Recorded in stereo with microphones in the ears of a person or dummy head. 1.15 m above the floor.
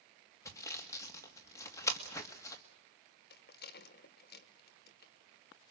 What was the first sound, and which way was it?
Sawing, 20° left (ahead or behind).